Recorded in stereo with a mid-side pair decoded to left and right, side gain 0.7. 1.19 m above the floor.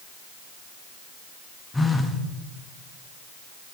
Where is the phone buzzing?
10° left, 1.2 m.